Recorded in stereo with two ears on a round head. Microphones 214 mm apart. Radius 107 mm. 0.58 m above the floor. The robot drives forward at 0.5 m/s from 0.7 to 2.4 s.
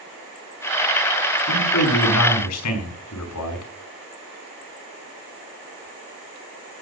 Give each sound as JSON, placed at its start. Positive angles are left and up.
{"t": 1.5, "sound": "a man speaking", "side_deg": 80, "distance_m": 5.5}